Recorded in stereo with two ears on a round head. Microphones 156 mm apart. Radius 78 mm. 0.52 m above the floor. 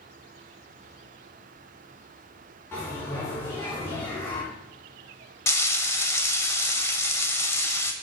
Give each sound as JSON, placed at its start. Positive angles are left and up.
{"t": 2.7, "sound": "a bell", "side_deg": 15, "distance_m": 3.5}
{"t": 5.5, "sound": "frying", "side_deg": 15, "distance_m": 0.7}